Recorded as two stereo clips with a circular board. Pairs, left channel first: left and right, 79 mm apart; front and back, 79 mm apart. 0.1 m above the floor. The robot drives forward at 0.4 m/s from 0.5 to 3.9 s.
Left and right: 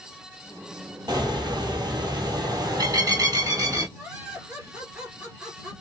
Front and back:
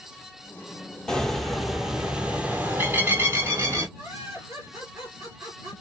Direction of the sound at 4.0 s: 160° right.